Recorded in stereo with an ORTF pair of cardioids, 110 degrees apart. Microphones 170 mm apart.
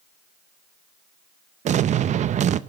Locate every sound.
1.6 s an explosion: 45° right, 0.6 m